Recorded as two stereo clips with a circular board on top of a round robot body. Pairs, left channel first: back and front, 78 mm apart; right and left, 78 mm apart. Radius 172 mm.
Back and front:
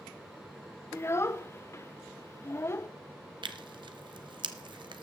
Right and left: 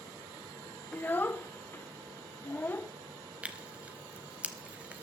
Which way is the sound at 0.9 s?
145° right.